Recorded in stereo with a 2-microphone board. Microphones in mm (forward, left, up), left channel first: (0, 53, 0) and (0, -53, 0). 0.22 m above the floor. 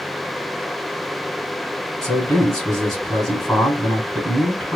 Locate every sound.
2.0 s a man speaking: 5° left (ahead or behind), 2.5 m